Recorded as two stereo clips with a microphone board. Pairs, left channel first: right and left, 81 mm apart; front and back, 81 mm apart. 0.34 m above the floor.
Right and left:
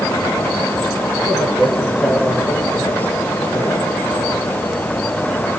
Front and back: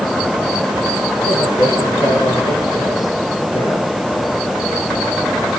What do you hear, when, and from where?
1.2 s a man speaking: 10° left, 8 m; by 4.4 s 10° right, 9 m